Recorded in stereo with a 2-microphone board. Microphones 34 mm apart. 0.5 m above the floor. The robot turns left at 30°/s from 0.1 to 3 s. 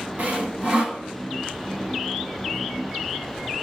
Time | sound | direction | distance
0.2 | sawing | 45° right (ahead or behind) | 2 m